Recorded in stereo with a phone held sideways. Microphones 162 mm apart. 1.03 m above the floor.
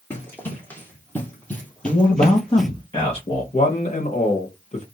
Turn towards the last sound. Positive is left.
turn(degrees=45)  # may be behind; listen again after turning